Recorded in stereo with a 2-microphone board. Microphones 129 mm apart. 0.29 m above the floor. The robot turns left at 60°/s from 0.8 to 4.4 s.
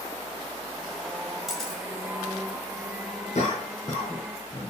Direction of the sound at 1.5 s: Centre (ahead or behind).